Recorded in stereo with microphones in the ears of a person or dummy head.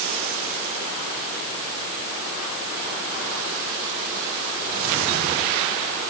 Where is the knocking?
No knocking in this recording.